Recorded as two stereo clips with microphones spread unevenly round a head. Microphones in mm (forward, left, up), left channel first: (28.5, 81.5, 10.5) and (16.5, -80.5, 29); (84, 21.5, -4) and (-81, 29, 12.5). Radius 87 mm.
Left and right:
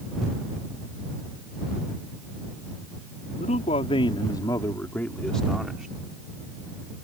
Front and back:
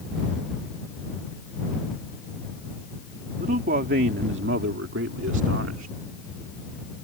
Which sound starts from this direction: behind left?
A man speaking, at 3.4 s.